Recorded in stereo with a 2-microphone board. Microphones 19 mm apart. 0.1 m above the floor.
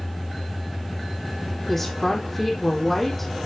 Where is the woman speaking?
15° left (ahead or behind), 3.5 m.